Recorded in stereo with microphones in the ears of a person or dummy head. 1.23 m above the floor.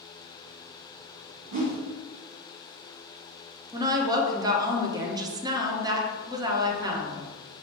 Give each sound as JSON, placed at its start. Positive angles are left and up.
{"t": 1.5, "sound": "a whoosh", "side_deg": -40, "distance_m": 1.2}
{"t": 3.7, "sound": "a woman speaking", "side_deg": -20, "distance_m": 0.8}